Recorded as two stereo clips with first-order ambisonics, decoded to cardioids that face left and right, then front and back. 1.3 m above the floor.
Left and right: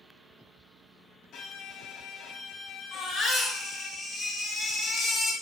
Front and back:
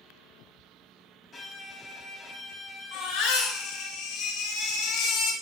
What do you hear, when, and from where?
1.3 s a violin: 70° left, 0.5 m
2.9 s a baby crying: 15° left, 0.8 m